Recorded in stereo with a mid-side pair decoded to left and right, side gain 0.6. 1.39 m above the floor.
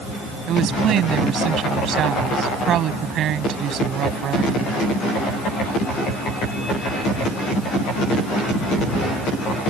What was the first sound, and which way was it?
A woman speaking, 55° right.